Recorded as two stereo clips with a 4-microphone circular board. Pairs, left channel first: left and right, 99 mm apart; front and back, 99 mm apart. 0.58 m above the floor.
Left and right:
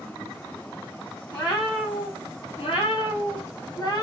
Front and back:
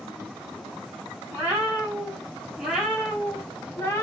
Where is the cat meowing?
110° left, 1.8 m; by 4.0 s 55° left, 0.8 m.